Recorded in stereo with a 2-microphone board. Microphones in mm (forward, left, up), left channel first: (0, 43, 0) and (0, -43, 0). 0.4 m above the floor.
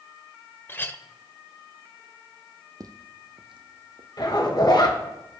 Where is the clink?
25° left (ahead or behind), 0.6 m.